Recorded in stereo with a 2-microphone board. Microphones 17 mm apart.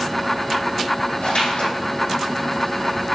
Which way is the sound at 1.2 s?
85° left.